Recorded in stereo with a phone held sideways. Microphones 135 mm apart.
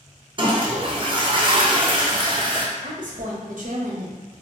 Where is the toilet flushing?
35° right (ahead or behind), 0.6 m.